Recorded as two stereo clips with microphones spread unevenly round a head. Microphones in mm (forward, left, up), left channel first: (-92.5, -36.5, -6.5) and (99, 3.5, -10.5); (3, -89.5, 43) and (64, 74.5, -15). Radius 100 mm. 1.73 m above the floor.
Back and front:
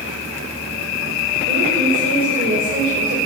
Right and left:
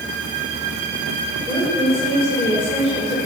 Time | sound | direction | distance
1.5 | a woman speaking | 35° right | 7.5 m